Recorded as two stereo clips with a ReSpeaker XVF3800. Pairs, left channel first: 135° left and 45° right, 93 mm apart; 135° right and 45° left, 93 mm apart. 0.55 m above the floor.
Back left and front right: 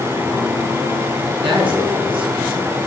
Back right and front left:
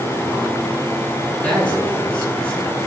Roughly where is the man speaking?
Ahead right.